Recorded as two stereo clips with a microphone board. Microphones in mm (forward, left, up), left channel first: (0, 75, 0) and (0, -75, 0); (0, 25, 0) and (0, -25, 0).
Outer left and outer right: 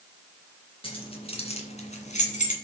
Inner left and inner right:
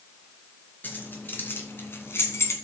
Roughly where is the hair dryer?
No hair dryer in this recording.